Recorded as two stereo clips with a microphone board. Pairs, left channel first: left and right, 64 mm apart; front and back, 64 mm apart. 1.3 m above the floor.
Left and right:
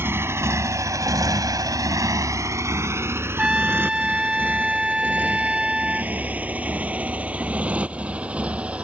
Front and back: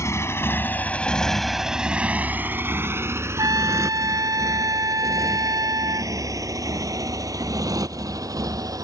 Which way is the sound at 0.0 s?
40° right.